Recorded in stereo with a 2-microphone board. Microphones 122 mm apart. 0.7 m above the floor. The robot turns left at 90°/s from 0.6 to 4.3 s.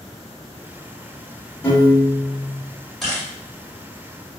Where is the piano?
155° left, 1.4 m; by 2.6 s 70° left, 1.4 m.